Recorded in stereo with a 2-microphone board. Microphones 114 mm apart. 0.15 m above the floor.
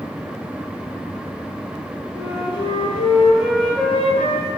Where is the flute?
55° left (ahead or behind), 0.9 m.